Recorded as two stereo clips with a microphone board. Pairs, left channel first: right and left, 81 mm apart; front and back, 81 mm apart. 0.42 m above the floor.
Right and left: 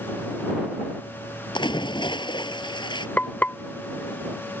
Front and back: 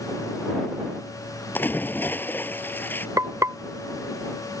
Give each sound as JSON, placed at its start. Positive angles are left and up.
{"t": 1.6, "sound": "a splash", "azimuth_deg": -65}
{"t": 3.2, "sound": "frying", "azimuth_deg": -150}